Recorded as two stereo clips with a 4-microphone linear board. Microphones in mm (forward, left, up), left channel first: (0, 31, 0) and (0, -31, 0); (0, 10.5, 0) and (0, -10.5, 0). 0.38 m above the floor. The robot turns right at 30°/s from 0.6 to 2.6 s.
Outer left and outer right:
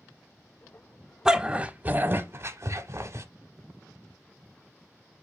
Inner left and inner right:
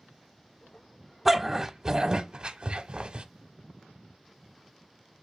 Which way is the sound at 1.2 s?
10° right (ahead or behind).